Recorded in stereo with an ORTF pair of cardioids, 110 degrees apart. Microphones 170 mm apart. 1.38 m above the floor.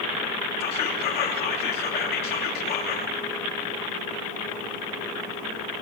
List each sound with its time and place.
0.6 s whispering: 65° left, 3 m